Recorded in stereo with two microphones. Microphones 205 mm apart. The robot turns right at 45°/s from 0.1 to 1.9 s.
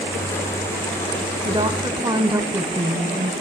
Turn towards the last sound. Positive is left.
turn(degrees=-20)  # may be behind; listen again after turning